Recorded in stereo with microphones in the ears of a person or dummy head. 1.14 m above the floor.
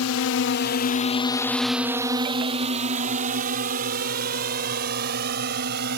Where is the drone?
70° left (ahead or behind); by 6.0 s 55° right (ahead or behind).